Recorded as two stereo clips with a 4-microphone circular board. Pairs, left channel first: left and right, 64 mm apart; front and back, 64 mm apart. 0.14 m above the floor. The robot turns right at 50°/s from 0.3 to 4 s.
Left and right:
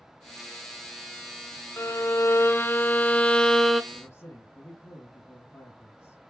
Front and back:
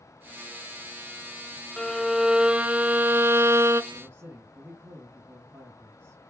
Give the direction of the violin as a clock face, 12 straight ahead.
9 o'clock.